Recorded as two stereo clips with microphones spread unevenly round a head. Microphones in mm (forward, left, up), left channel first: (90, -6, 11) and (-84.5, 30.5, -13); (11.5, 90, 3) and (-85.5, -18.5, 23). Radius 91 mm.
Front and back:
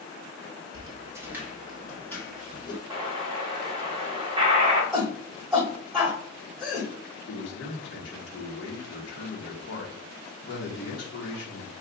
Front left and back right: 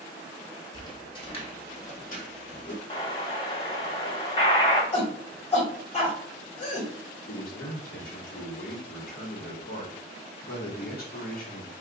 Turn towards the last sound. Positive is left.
turn(degrees=15)